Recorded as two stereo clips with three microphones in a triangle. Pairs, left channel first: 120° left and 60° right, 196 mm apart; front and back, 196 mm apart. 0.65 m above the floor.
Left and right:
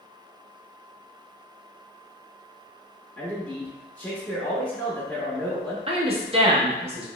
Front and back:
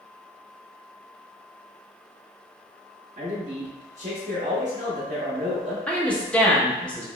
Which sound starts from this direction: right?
A woman speaking, at 5.9 s.